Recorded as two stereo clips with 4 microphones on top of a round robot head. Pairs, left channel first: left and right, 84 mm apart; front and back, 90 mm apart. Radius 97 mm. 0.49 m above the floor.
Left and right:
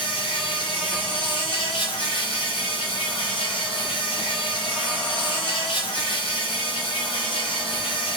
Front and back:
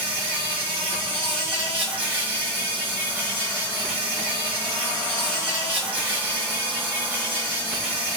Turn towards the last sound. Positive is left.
turn(degrees=115)